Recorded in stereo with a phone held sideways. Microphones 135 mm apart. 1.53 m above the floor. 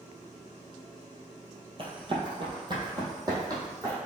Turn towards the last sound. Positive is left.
turn(degrees=-25)  # may be behind; listen again after turning